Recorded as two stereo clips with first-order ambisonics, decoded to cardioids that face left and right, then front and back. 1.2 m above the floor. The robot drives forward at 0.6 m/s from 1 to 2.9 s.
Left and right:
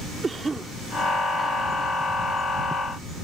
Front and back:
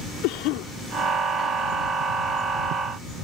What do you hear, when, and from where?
0.2 s a cough: 15° right